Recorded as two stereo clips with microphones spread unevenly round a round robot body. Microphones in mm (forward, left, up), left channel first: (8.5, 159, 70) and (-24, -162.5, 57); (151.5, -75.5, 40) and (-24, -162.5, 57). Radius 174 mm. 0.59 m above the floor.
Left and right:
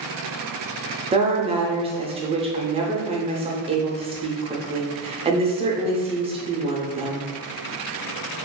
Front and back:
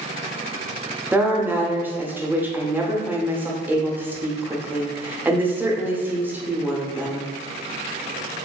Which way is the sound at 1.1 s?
75° right.